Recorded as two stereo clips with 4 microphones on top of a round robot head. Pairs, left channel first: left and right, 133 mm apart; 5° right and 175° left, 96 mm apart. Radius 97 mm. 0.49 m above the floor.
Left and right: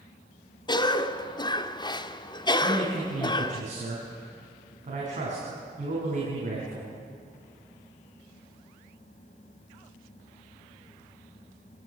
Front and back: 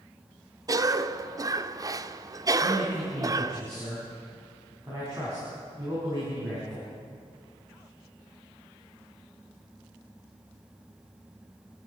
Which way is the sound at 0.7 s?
135° left.